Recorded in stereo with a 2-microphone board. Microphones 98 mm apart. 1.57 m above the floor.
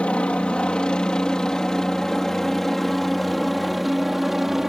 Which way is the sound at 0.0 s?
10° left (ahead or behind).